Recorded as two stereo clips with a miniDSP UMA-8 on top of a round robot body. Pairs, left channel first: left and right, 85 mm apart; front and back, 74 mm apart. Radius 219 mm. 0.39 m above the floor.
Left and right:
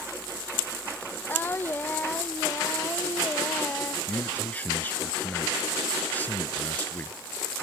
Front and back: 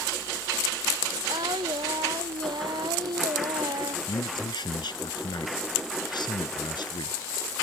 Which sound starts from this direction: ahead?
A man speaking, at 4.1 s.